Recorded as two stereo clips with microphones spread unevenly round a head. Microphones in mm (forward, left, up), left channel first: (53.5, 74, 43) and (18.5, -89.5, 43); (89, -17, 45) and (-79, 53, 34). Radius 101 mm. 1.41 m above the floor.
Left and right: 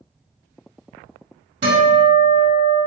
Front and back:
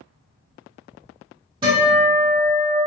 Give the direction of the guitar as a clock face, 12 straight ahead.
4 o'clock.